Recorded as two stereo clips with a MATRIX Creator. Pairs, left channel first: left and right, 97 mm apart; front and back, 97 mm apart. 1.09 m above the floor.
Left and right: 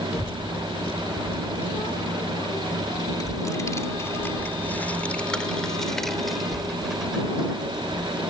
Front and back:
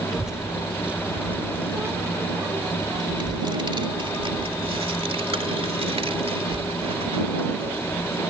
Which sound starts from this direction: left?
A child speaking, at 0.1 s.